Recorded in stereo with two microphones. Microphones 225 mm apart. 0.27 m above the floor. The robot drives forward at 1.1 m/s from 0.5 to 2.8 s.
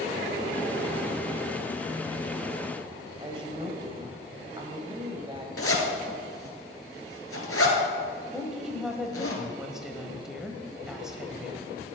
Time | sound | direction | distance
3.2 | a woman speaking | 20° right (ahead or behind) | 1.4 m
5.6 | a zipper | 80° left | 1.9 m
8.3 | a woman speaking | centre (ahead or behind) | 1.2 m